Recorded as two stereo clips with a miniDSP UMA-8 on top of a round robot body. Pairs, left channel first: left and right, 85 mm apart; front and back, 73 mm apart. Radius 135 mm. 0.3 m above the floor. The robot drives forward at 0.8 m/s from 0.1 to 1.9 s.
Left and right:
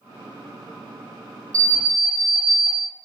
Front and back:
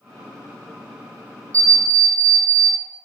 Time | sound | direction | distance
1.5 | an alarm clock | 135° right | 0.6 m